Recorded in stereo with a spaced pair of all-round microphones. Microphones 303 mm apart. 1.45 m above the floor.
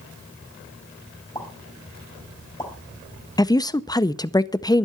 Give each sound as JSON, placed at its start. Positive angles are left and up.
{"t": 1.4, "sound": "a pop", "side_deg": 15, "distance_m": 3.5}
{"t": 3.4, "sound": "a woman speaking", "side_deg": 15, "distance_m": 0.5}